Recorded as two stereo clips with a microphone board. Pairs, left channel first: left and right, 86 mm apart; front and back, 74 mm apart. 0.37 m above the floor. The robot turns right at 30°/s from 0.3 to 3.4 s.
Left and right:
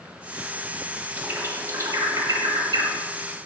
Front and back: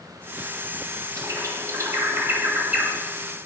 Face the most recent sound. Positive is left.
turn(degrees=-90)